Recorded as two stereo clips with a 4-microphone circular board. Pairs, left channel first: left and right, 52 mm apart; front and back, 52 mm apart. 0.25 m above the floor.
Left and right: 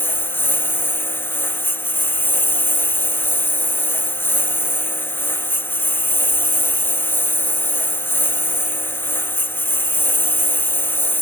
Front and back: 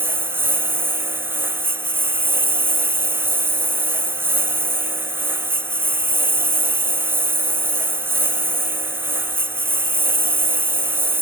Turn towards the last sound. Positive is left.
turn(degrees=135)